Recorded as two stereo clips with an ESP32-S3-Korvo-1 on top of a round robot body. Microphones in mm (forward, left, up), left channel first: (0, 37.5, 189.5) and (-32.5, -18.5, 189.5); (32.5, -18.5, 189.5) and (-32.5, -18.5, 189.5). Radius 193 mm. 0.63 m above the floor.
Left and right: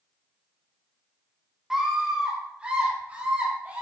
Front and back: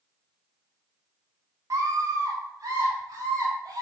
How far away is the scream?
About 2 m.